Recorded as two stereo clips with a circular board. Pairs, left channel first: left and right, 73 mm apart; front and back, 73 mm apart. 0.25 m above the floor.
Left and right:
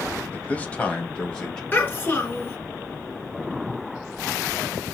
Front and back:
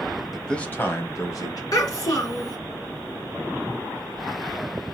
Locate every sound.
0.3 s a man speaking: 95° left, 0.9 m; by 1.6 s 15° left, 1.8 m
1.7 s a child speaking: 30° left, 2 m